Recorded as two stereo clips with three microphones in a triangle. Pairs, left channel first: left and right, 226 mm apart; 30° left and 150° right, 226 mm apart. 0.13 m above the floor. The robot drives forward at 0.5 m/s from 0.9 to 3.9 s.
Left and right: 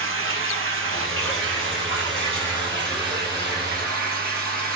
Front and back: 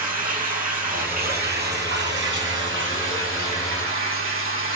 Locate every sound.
0.0 s running water: 100° right, 2 m; by 4.8 s 135° right, 3 m